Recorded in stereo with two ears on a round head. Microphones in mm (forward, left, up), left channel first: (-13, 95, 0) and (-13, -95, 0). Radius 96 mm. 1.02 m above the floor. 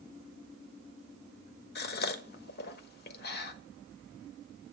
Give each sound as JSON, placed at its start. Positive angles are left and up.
{"t": 1.8, "sound": "a gasp", "side_deg": 55, "distance_m": 1.2}